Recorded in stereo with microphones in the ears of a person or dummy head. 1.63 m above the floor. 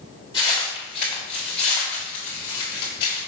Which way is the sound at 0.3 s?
15° left (ahead or behind).